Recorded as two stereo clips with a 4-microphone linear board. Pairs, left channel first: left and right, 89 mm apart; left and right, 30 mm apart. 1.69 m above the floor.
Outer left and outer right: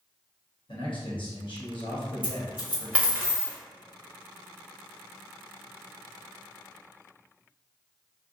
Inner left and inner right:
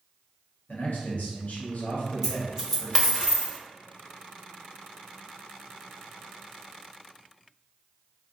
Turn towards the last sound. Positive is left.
turn(degrees=-15)  # may be behind; listen again after turning